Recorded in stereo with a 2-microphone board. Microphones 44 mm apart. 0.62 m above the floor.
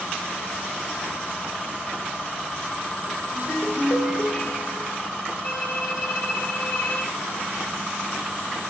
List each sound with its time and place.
3.3 s a ringtone: 50° left (ahead or behind), 1.6 m
5.4 s a violin: 65° left (ahead or behind), 1.8 m